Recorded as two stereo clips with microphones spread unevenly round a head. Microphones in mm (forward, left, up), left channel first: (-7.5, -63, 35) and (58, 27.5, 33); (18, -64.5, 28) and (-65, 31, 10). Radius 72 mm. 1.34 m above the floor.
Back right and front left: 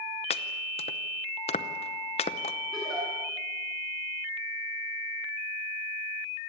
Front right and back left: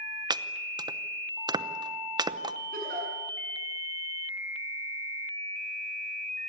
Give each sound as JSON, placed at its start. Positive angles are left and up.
{"t": 0.3, "sound": "chopping", "azimuth_deg": -170, "distance_m": 0.8}
{"t": 2.7, "sound": "a giggle", "azimuth_deg": 145, "distance_m": 8.0}